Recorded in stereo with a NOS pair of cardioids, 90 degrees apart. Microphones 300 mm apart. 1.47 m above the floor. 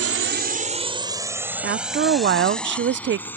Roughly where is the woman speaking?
Ahead right.